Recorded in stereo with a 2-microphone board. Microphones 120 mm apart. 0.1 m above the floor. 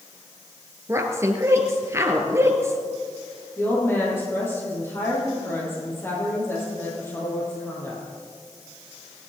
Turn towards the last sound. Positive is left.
turn(degrees=20)  # may be behind; listen again after turning